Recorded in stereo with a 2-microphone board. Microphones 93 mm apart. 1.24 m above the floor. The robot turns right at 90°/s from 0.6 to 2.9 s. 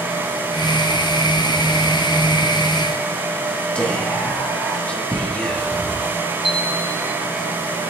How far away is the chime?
About 3.5 m.